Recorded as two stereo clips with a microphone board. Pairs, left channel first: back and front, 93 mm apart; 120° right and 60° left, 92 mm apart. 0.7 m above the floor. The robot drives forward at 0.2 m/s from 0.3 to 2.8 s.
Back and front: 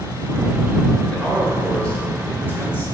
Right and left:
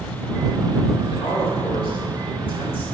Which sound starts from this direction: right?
A man speaking, at 1.1 s.